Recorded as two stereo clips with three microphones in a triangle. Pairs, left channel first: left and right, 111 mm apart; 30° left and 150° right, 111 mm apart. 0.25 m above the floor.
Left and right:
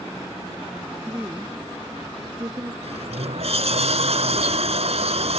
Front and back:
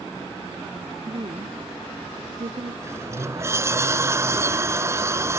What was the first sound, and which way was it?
A woman speaking, 165° right.